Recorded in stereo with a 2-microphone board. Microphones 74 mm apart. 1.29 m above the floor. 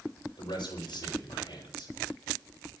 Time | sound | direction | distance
0.4 | a man speaking | 85° left | 6 m